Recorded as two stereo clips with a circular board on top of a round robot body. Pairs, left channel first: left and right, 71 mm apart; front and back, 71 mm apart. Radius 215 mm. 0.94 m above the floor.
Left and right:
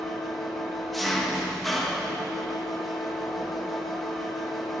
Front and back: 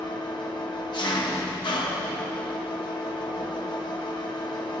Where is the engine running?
Straight ahead, 1.2 m.